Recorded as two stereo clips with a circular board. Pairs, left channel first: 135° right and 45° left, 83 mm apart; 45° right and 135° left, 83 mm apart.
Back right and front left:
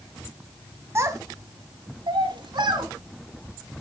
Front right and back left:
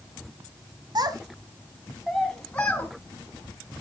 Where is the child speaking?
100° left, 1.9 m; by 2.9 s 25° left, 3 m.